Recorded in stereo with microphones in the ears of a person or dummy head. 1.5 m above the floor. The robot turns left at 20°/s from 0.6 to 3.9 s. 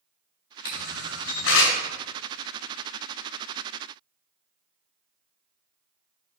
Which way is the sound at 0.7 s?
80° left.